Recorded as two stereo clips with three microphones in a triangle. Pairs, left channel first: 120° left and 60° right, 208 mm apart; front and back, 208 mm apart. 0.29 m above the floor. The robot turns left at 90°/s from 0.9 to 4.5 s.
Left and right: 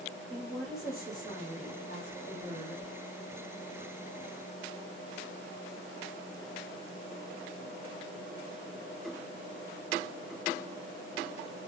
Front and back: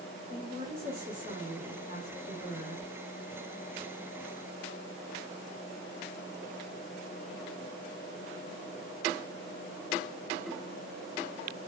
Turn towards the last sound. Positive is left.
turn(degrees=-110)